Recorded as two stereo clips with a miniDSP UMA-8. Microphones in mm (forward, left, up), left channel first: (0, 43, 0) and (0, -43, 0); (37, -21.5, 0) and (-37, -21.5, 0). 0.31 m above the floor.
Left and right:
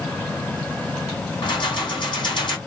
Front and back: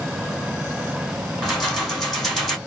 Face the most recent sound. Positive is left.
turn(degrees=90)